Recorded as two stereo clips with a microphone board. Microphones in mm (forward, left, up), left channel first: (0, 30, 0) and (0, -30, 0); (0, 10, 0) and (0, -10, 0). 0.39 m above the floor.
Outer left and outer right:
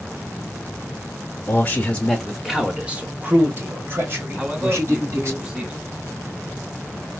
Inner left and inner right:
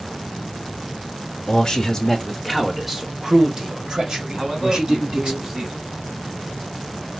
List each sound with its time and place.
1.5 s a man speaking: 35° left (ahead or behind), 0.9 m; by 5.4 s 50° right (ahead or behind), 2.5 m
4.4 s a man speaking: 15° right (ahead or behind), 1.3 m